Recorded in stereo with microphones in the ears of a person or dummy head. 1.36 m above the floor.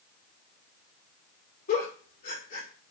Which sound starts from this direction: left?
A giggle, at 1.7 s.